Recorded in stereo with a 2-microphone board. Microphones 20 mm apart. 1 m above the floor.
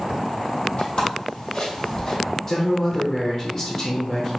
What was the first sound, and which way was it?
Footsteps, 60° left (ahead or behind).